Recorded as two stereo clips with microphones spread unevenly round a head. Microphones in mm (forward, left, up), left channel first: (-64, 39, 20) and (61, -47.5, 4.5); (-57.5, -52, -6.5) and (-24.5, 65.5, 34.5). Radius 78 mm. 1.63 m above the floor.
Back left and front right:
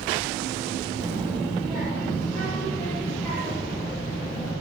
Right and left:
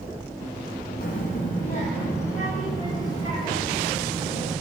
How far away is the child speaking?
About 1.2 m.